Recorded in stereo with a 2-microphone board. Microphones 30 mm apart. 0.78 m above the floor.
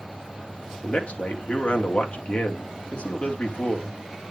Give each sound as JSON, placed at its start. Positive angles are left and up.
{"t": 0.8, "sound": "a man speaking", "side_deg": 45, "distance_m": 1.9}